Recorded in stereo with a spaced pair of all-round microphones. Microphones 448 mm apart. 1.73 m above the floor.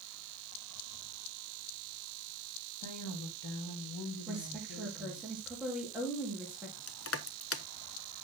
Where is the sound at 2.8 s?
60° left (ahead or behind), 3.5 m; by 5.3 s 70° left (ahead or behind), 5 m.